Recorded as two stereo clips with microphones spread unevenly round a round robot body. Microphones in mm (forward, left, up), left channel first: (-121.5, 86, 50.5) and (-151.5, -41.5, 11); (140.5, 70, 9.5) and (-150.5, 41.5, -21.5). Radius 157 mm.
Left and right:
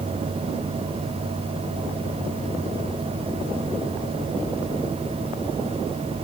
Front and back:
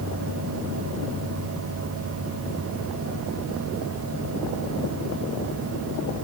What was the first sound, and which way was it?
Only background noise.